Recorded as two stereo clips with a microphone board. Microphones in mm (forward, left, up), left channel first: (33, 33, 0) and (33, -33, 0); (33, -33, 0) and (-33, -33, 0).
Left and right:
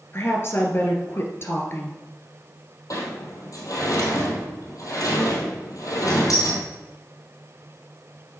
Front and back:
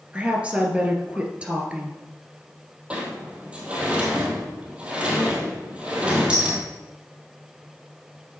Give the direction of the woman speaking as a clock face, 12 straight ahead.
8 o'clock.